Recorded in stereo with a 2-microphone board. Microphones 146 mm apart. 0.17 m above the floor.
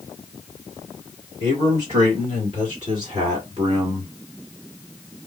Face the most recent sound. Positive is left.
turn(degrees=-45)  # may be behind; listen again after turning